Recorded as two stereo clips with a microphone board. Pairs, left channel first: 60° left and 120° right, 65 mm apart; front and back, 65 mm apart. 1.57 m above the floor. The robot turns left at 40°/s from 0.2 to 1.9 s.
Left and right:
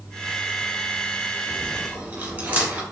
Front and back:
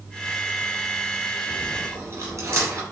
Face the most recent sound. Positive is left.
turn(degrees=180)